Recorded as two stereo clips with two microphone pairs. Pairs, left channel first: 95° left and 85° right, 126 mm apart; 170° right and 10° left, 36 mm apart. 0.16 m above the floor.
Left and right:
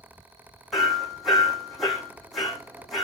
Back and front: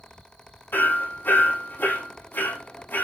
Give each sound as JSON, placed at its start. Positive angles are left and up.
{"t": 0.7, "sound": "hammering", "azimuth_deg": -175, "distance_m": 5.5}